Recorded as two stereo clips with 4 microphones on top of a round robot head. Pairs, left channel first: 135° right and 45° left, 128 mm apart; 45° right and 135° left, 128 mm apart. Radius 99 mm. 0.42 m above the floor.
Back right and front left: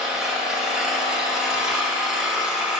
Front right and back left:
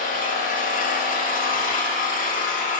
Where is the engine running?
40° right, 0.8 m.